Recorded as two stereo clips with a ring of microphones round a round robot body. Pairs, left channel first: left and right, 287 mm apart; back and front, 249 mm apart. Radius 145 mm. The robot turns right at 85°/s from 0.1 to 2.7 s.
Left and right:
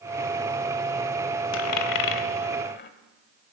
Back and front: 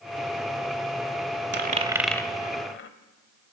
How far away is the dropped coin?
About 0.9 m.